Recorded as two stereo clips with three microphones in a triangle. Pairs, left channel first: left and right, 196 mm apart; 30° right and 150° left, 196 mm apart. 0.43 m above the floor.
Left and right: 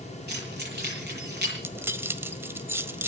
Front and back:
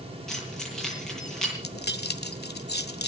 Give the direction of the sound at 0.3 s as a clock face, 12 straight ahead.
4 o'clock.